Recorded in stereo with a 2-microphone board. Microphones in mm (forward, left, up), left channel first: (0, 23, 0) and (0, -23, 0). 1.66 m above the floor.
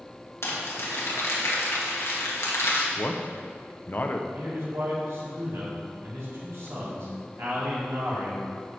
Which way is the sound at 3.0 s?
45° left (ahead or behind).